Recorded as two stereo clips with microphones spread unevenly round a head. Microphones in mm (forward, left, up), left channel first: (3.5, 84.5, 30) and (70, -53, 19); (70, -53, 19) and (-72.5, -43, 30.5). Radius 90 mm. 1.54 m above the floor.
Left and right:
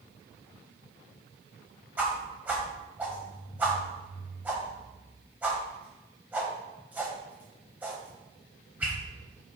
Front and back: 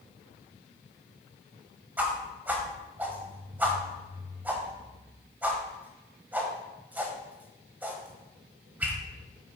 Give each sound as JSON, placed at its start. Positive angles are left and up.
{"t": 2.0, "sound": "a whoosh", "azimuth_deg": -145, "distance_m": 1.4}